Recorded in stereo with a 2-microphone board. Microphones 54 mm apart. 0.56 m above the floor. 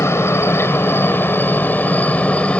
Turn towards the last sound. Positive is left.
turn(degrees=20)  # may be behind; listen again after turning